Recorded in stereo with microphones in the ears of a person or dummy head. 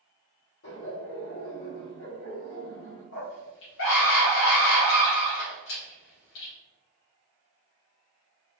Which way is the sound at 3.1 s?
65° left (ahead or behind).